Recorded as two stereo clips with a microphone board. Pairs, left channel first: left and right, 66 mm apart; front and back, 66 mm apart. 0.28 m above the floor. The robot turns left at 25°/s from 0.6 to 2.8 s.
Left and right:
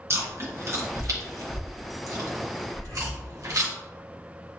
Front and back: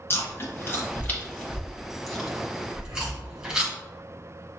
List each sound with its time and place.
0.1 s chewing: 50° right, 1.4 m; by 3.7 s 105° right, 1.4 m
2.7 s breathing: 140° left, 1.5 m; by 3.2 s 135° left, 1.5 m